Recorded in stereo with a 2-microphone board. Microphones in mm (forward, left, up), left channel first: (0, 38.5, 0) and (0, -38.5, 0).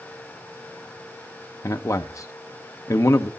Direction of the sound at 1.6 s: 40° left (ahead or behind).